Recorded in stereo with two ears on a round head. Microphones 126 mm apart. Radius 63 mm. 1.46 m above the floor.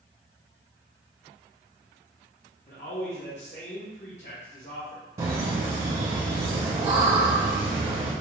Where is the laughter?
35° right (ahead or behind), 0.7 m.